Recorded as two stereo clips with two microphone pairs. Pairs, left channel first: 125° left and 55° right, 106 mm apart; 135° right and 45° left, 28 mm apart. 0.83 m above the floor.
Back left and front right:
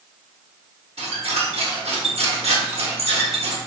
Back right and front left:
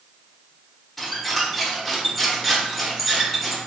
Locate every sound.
1.0 s a squeak: 50° right, 0.8 m